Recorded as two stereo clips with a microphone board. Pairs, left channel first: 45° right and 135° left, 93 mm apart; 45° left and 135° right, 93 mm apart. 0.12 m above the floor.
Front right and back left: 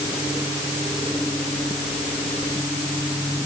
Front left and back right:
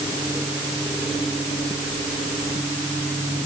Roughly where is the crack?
No crack in this recording.